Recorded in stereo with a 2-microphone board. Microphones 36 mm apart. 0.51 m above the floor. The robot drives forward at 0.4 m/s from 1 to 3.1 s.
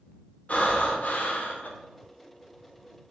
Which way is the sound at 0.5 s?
45° left (ahead or behind).